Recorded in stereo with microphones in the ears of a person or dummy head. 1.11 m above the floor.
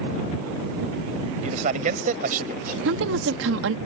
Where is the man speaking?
40° right (ahead or behind); by 2.8 s 55° right (ahead or behind).